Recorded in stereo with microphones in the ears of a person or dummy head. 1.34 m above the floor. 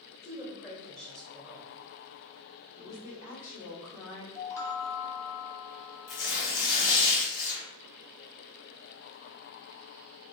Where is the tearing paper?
70° left (ahead or behind), 1.8 m.